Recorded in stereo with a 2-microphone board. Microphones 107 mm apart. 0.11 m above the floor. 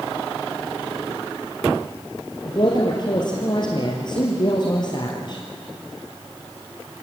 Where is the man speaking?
45° left (ahead or behind), 3 m.